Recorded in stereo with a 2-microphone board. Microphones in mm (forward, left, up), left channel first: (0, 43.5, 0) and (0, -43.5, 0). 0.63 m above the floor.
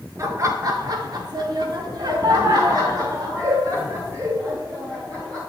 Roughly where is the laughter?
Right.